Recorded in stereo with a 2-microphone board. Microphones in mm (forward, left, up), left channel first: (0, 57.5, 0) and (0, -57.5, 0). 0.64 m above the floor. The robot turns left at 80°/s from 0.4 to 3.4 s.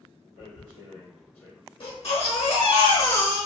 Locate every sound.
0.4 s tearing paper: 85° left, 1.3 m; by 1.6 s centre (ahead or behind), 1.3 m
1.8 s a baby crying: 130° left, 1.0 m; by 3.5 s straight ahead, 1.0 m